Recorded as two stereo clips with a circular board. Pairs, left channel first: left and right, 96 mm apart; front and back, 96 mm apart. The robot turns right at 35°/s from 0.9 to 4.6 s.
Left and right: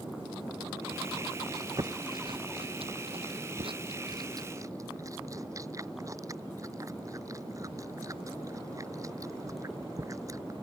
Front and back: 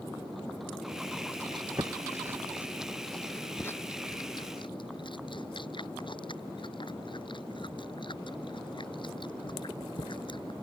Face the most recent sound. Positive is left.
turn(degrees=-35)